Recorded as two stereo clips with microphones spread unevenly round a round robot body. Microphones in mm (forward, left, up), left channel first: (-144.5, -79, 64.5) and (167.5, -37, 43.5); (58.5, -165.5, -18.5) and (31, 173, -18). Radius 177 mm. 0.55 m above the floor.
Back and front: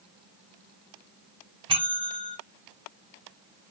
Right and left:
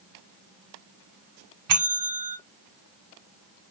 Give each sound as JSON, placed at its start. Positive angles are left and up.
{"t": 1.7, "sound": "a bell", "azimuth_deg": 75, "distance_m": 0.8}